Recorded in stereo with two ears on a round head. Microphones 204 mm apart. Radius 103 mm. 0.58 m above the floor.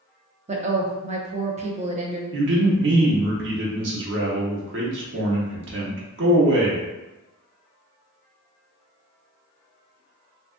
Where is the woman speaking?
30° right (ahead or behind), 0.6 m.